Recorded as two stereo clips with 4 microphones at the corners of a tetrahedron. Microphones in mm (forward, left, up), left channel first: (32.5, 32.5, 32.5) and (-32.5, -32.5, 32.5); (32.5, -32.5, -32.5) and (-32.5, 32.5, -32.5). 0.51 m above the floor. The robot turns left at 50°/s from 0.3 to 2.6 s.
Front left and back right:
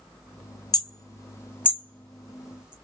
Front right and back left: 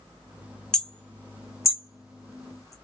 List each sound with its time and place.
0.7 s hammering: 35° left, 0.7 m; by 2.7 s 60° right, 0.7 m